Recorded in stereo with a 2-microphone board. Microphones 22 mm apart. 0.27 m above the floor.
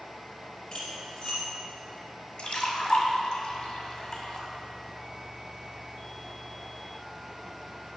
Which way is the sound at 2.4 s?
45° left (ahead or behind).